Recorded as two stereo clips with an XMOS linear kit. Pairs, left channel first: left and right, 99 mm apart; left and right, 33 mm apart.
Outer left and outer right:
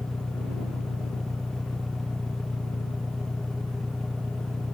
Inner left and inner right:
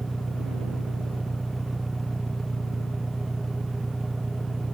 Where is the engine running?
5° left (ahead or behind).